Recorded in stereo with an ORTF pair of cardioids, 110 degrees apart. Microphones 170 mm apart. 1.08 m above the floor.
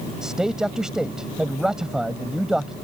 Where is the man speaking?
5° right.